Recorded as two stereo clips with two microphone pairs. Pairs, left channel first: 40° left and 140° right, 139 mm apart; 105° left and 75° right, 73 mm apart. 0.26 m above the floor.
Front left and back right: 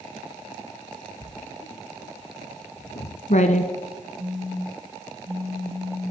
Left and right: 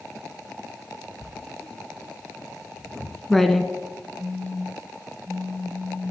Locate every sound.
1.2 s writing: 20° left, 0.8 m
4.2 s a phone buzzing: 145° right, 3.5 m